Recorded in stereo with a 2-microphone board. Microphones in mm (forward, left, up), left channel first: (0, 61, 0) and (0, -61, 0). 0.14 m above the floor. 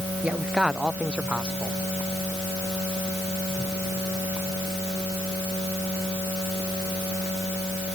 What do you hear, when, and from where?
0.2 s a man speaking: 10° right (ahead or behind)